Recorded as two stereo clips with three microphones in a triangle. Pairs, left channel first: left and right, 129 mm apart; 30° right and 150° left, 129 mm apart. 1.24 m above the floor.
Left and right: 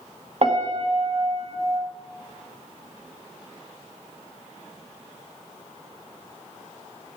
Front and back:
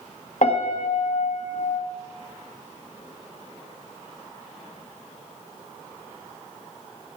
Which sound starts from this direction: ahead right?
A piano, at 0.4 s.